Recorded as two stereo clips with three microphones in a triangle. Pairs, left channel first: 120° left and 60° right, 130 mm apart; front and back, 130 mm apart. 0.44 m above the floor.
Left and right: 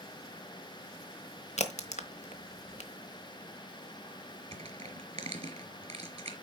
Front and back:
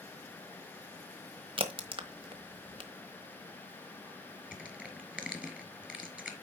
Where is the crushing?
95° right, 1.8 m.